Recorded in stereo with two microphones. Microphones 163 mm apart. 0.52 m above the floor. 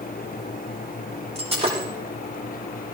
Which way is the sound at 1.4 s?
40° right (ahead or behind).